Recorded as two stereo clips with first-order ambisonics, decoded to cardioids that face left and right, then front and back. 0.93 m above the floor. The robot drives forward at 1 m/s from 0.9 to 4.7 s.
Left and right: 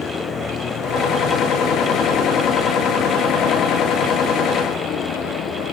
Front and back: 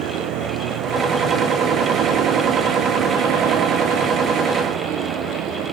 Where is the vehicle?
150° left; by 5.7 s 140° left.